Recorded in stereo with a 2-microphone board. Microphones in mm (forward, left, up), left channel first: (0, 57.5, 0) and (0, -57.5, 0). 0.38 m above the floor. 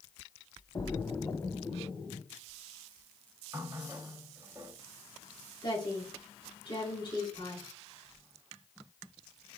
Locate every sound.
0.8 s a splash: 30° left (ahead or behind), 1.2 m
3.5 s a running tap: 25° right (ahead or behind), 1.2 m
5.6 s a woman speaking: 45° left (ahead or behind), 4 m